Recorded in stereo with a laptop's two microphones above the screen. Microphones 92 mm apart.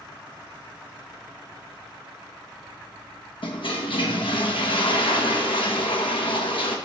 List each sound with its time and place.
3.4 s a toilet flushing: 75° left (ahead or behind), 1.1 m